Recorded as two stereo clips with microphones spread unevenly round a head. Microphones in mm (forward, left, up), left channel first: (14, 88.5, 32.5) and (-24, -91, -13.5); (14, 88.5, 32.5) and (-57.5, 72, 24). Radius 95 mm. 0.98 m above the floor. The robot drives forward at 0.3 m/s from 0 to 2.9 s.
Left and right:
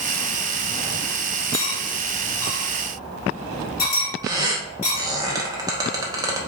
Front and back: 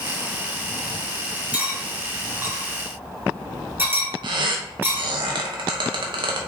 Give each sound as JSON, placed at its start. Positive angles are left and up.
{"t": 1.5, "sound": "cutlery clinking", "azimuth_deg": 115, "distance_m": 1.5}
{"t": 4.2, "sound": "a squeak", "azimuth_deg": -175, "distance_m": 0.7}